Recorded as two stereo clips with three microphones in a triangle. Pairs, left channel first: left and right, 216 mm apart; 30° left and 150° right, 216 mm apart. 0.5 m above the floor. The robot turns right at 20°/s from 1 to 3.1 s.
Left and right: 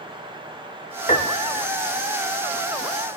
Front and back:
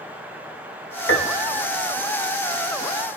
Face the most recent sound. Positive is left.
turn(degrees=80)